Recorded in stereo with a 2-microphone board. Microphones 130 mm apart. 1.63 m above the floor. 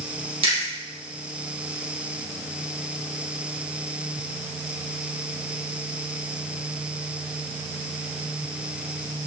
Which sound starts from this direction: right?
Chewing, at 0.4 s.